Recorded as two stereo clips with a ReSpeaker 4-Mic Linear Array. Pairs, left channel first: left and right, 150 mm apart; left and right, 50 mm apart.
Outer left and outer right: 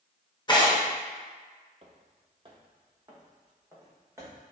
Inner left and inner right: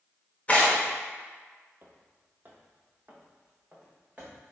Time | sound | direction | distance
0.5 | tearing paper | 30° left (ahead or behind) | 0.8 m
1.8 | footsteps | 45° right (ahead or behind) | 0.6 m